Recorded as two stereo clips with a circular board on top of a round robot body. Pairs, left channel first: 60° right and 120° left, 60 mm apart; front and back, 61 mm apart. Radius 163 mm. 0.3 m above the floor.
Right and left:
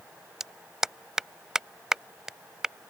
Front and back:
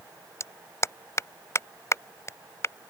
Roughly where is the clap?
Ahead left.